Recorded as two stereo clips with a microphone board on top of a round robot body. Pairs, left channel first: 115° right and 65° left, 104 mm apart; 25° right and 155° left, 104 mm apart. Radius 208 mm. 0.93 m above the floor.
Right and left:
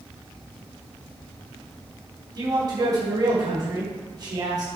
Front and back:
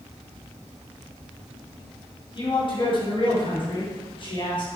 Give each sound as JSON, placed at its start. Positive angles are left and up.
{"t": 2.4, "sound": "a man speaking", "azimuth_deg": 15, "distance_m": 4.0}